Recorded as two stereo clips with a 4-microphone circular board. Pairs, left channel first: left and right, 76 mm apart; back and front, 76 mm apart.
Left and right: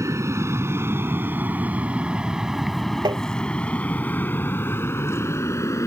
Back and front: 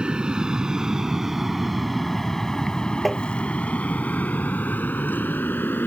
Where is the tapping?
90° right.